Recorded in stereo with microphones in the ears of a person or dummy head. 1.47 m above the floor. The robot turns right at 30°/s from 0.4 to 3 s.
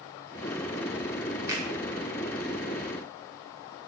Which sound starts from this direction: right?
A finger snap, at 1.5 s.